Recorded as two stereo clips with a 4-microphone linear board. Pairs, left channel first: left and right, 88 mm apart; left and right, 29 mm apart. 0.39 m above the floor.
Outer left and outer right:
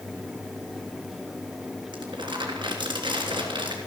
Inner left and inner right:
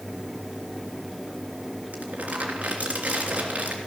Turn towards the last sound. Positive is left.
turn(degrees=-60)  # may be behind; listen again after turning